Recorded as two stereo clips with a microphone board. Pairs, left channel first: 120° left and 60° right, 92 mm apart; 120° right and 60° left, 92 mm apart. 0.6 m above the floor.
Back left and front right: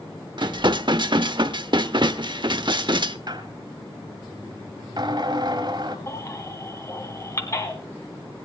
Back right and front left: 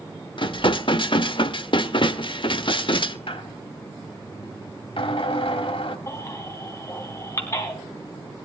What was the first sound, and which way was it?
Dishes clattering, 95° right.